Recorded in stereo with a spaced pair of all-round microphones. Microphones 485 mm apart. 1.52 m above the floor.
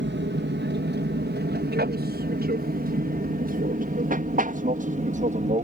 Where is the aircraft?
20° right (ahead or behind); by 5.7 s 15° right (ahead or behind).